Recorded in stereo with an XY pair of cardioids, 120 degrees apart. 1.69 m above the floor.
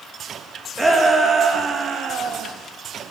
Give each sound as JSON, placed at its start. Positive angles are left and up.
{"t": 0.8, "sound": "a shout", "azimuth_deg": -15, "distance_m": 2.5}